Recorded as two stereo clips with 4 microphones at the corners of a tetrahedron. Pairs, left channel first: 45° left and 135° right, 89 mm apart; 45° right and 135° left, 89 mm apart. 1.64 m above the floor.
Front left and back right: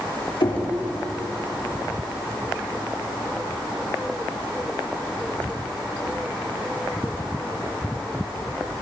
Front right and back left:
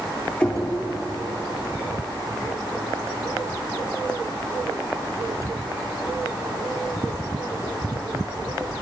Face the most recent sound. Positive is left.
turn(degrees=30)